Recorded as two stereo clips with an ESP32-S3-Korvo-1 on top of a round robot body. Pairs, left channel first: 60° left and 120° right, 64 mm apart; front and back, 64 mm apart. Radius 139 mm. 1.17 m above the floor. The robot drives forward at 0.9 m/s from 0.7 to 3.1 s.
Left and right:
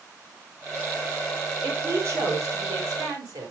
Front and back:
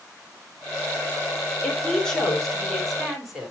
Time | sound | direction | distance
1.6 | a woman speaking | 75° right | 3.5 m